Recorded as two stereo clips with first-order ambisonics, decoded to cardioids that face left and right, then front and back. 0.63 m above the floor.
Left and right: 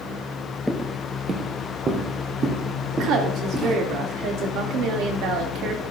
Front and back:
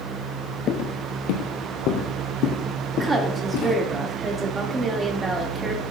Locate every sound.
0.7 s footsteps: straight ahead, 0.7 m; by 3.8 s 30° right, 3 m
2.9 s a woman speaking: 110° right, 1.5 m